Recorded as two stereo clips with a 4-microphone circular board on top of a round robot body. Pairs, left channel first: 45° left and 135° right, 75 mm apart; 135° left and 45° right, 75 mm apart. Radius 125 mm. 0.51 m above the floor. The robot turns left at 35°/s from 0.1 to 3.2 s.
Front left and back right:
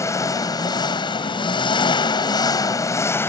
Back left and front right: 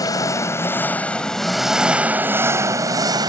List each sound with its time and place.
0.0 s an engine running: 95° left; by 3.3 s 15° right